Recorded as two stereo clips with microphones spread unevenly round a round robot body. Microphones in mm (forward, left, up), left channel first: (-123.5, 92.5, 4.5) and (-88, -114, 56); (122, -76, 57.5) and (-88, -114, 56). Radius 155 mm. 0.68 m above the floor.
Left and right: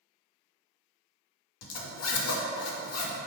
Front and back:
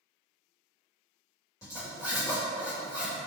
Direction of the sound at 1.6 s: 90° left.